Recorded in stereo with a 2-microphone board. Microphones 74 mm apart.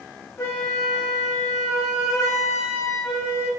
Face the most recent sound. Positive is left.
turn(degrees=40)  # may be behind; listen again after turning